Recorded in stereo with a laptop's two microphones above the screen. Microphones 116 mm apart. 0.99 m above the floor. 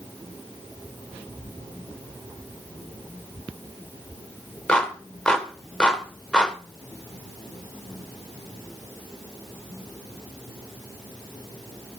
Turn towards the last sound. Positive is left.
turn(degrees=10)  # may be behind; listen again after turning